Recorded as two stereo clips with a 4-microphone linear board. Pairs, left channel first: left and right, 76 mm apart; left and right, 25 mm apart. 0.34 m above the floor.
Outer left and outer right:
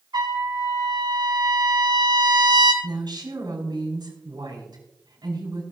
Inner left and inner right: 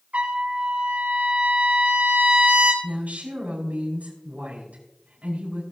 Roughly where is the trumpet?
Right.